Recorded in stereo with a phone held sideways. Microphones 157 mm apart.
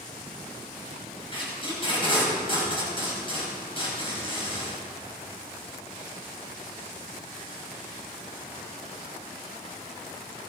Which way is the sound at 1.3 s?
35° left (ahead or behind).